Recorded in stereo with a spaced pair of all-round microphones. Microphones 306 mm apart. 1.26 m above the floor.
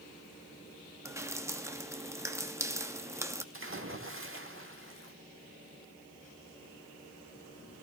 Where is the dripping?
10° right (ahead or behind), 0.7 m.